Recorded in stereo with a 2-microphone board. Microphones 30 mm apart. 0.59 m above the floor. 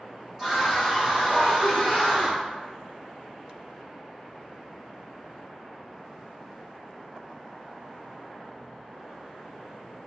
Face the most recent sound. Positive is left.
turn(degrees=-20)  # may be behind; listen again after turning